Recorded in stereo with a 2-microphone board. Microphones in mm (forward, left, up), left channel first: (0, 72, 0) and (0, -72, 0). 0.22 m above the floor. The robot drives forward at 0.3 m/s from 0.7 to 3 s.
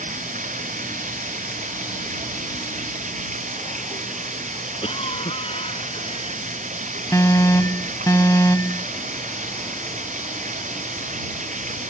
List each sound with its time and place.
0.0 s running water: 75° right (ahead or behind); by 11.9 s 70° right (ahead or behind)
4.8 s a cough: 50° left (ahead or behind)
7.1 s an alarm: 25° left (ahead or behind)